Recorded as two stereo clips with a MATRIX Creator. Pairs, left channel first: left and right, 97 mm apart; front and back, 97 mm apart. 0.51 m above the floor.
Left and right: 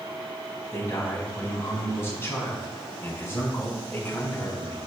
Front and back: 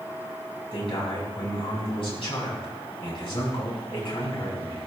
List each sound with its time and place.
0.7 s a man speaking: 25° left, 4 m